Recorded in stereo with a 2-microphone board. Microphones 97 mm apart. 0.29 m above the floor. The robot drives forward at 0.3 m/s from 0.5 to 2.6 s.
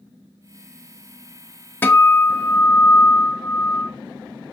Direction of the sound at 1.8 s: 20° left (ahead or behind).